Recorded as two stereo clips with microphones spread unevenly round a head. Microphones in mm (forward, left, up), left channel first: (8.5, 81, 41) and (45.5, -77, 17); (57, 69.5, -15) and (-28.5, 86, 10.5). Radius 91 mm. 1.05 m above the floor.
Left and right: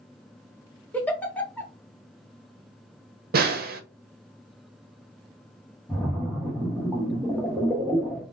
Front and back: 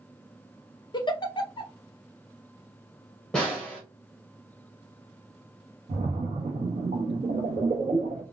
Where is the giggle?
30° left, 0.8 m.